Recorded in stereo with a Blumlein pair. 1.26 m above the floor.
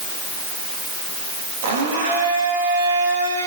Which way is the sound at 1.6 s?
50° right.